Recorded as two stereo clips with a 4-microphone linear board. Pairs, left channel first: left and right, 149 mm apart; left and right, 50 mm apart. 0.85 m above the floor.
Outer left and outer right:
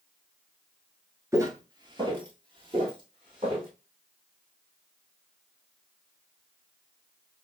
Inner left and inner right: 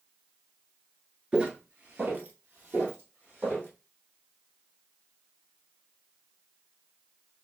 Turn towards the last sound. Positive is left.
turn(degrees=-35)  # may be behind; listen again after turning